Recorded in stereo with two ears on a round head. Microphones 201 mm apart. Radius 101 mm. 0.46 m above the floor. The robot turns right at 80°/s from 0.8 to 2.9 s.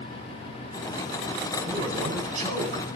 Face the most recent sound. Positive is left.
turn(degrees=-30)